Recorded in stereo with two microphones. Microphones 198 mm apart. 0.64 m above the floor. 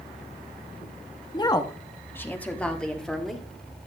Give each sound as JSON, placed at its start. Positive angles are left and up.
{"t": 1.3, "sound": "a woman speaking", "side_deg": 20, "distance_m": 0.9}